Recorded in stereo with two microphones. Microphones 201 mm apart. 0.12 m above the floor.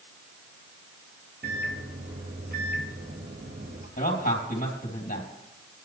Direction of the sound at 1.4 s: 55° right (ahead or behind).